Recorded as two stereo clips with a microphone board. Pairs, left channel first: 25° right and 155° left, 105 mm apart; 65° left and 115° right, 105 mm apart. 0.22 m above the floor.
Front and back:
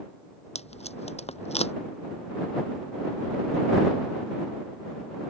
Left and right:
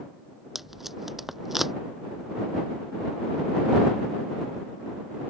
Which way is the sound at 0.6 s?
25° right.